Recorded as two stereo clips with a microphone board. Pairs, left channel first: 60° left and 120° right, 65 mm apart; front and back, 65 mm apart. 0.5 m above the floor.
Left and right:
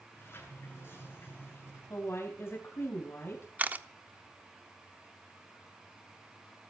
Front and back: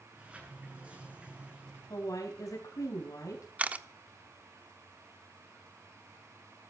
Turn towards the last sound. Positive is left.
turn(degrees=-145)